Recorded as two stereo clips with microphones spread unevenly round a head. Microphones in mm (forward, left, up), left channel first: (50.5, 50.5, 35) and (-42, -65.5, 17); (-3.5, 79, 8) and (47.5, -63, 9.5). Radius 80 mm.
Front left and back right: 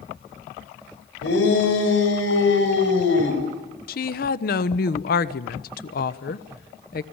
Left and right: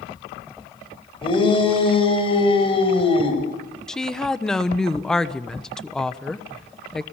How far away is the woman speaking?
About 1.2 m.